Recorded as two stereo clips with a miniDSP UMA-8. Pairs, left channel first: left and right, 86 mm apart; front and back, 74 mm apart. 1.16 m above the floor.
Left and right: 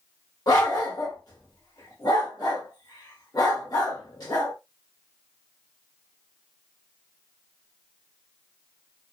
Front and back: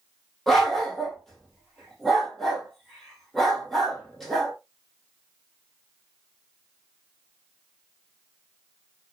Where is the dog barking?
85° left, 1.1 m.